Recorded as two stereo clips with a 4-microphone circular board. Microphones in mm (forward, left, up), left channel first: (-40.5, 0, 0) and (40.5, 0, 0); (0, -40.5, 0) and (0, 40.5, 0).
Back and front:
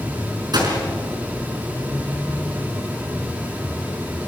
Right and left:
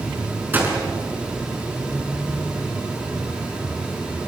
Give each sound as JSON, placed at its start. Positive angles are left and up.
{"t": 0.5, "sound": "a gunshot", "azimuth_deg": 25, "distance_m": 5.0}